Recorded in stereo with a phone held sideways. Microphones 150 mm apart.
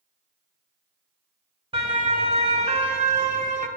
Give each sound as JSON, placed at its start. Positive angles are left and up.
{"t": 1.7, "sound": "a siren", "side_deg": -35, "distance_m": 2.5}